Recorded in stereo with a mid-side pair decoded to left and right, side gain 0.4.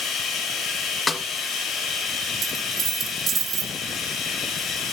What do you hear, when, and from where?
0.0 s running water: 70° left, 7 m
1.1 s a snare drum: 35° left, 2 m
2.4 s a dropped coin: 60° right, 6.5 m